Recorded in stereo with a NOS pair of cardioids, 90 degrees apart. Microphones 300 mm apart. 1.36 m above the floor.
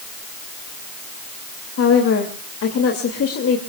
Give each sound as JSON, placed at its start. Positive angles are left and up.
{"t": 1.8, "sound": "a woman speaking", "azimuth_deg": 50, "distance_m": 2.5}